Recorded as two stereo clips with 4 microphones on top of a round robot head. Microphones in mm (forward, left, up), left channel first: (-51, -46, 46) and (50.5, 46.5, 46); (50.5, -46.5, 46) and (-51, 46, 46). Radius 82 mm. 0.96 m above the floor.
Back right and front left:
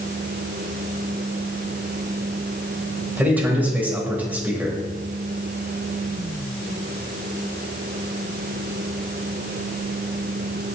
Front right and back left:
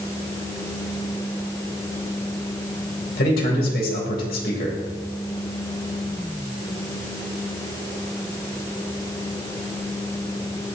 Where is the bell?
No bell in this recording.